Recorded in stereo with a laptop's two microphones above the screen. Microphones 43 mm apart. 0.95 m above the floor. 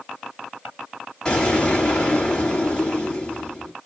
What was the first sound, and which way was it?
An explosion, 20° left (ahead or behind).